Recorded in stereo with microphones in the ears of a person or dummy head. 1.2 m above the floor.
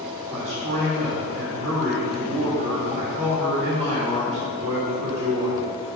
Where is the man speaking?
35° right (ahead or behind), 2.5 m.